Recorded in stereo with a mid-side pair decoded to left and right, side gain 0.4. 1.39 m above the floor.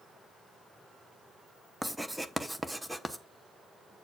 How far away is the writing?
About 0.9 m.